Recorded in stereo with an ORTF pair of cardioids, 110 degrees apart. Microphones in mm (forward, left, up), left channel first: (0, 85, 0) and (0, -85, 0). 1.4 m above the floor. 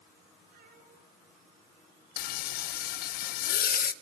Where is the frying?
65° left, 0.8 m.